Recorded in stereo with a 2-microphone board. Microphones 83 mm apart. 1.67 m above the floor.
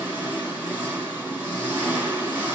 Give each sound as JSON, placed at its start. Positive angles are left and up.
{"t": 0.0, "sound": "an engine running", "side_deg": -15, "distance_m": 4.0}